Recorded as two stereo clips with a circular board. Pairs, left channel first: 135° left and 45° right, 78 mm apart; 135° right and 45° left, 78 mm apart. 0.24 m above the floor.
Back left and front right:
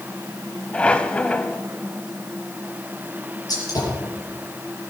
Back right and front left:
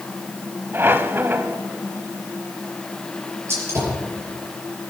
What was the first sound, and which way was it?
A squeak, 75° left.